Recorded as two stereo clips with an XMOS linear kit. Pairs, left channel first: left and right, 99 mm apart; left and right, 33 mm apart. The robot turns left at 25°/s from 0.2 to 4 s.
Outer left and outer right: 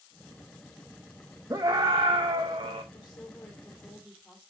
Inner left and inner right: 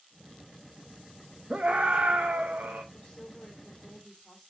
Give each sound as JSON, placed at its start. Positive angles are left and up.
{"t": 1.5, "sound": "a scream", "azimuth_deg": -40, "distance_m": 0.9}
{"t": 2.9, "sound": "a woman speaking", "side_deg": 35, "distance_m": 2.5}